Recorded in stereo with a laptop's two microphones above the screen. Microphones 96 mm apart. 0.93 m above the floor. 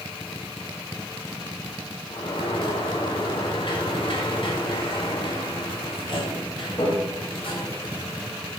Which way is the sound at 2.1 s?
60° left (ahead or behind).